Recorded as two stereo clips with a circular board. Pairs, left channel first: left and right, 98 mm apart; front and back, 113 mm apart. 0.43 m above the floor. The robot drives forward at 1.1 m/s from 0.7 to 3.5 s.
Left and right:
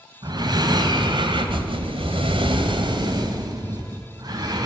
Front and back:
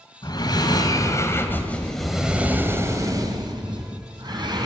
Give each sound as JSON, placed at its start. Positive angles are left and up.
{"t": 0.2, "sound": "breathing", "azimuth_deg": -50, "distance_m": 2.5}